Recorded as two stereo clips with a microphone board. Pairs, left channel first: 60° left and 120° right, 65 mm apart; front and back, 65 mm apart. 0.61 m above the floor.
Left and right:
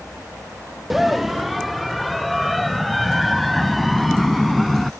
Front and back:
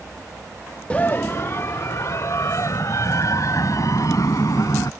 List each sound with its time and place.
0.9 s a scream: 40° right; by 4.9 s 30° right